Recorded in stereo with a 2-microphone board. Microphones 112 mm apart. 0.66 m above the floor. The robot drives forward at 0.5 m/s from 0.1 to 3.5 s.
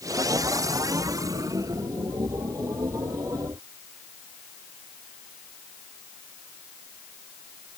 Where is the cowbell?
I don't hear a cowbell.